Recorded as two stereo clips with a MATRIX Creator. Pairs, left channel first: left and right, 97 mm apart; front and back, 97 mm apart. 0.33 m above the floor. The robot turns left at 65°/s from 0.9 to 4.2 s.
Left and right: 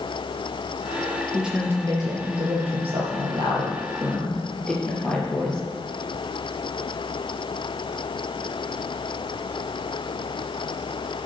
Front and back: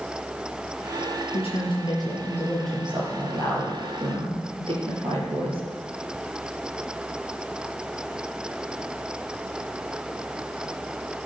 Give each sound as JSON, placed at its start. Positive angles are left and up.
{"t": 1.3, "sound": "a woman speaking", "azimuth_deg": 0, "distance_m": 5.5}